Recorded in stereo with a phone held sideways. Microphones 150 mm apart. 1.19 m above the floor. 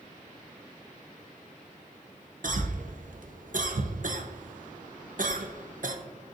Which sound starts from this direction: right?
A cough, at 2.4 s.